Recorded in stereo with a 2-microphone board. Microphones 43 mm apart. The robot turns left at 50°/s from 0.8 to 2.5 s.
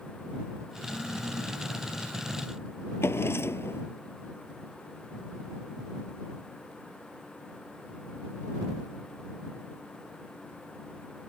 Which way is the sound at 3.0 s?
70° left (ahead or behind).